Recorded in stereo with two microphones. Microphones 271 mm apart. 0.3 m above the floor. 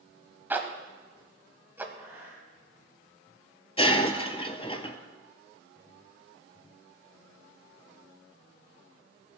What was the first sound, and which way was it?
A zipper, 10° right (ahead or behind).